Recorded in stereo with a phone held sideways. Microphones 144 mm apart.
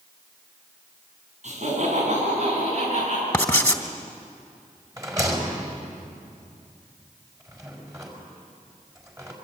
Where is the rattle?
20° right (ahead or behind), 4.5 m.